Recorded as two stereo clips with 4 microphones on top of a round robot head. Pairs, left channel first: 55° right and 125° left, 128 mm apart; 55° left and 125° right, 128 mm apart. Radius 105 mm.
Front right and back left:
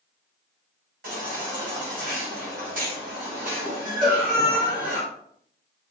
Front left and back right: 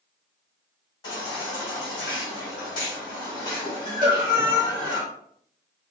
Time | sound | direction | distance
1.0 | a baby crying | 110° left | 1.8 m
4.0 | a cowbell | straight behind | 2 m